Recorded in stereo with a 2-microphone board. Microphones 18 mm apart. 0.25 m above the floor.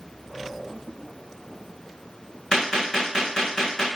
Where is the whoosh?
70° left (ahead or behind), 4.5 m.